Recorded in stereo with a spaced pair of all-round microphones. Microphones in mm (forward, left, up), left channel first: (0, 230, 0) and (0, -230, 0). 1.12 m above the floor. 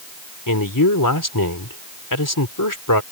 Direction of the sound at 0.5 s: 45° left (ahead or behind).